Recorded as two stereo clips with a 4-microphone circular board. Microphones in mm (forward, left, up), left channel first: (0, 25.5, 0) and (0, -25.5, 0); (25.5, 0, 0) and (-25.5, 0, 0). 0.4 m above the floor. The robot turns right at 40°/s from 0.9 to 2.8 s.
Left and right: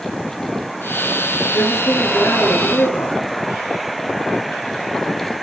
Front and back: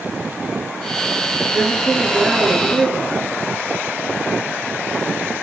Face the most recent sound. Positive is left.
turn(degrees=100)